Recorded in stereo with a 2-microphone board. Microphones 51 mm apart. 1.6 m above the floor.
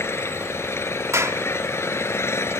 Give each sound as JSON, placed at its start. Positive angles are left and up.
{"t": 0.0, "sound": "an engine running", "side_deg": 55}
{"t": 1.1, "sound": "a clap", "side_deg": -70}